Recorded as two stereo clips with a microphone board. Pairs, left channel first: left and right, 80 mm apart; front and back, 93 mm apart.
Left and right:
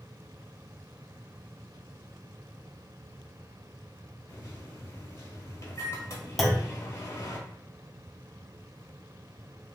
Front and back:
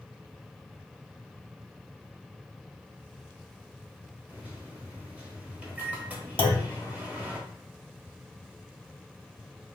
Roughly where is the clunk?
Ahead.